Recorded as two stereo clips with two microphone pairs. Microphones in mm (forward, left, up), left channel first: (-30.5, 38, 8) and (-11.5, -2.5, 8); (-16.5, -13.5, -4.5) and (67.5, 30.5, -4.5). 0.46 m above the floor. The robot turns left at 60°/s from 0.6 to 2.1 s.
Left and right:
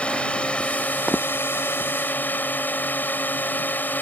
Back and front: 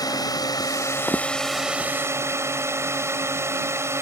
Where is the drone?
175° left; by 4.0 s 85° left.